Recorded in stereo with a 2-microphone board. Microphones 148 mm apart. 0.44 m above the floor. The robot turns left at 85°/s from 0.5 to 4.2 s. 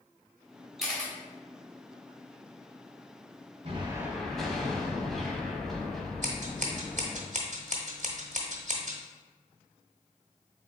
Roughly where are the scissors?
Right.